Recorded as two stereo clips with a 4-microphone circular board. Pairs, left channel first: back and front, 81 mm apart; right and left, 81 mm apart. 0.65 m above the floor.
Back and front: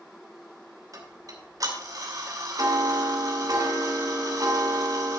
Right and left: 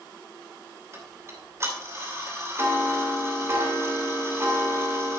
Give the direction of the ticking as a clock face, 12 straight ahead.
11 o'clock.